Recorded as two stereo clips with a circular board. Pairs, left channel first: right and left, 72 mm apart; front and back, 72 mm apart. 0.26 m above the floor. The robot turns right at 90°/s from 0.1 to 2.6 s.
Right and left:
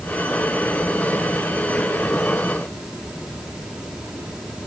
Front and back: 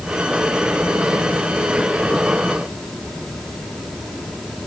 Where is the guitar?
I don't hear a guitar.